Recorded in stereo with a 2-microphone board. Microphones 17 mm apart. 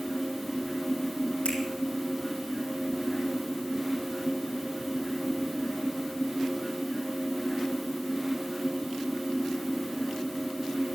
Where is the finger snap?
85° left, 6 m.